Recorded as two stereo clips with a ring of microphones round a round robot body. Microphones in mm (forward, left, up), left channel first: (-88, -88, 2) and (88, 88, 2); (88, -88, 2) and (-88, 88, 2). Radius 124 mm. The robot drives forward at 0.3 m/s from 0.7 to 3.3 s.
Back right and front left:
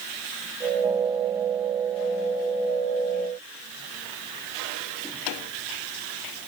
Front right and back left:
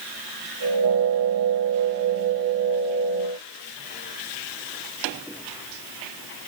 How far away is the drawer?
No drawer in this recording.